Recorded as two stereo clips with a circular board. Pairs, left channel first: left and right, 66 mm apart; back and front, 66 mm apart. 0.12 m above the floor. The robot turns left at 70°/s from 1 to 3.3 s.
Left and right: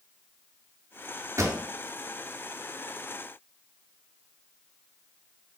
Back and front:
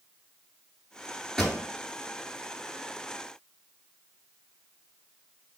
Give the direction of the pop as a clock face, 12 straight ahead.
3 o'clock.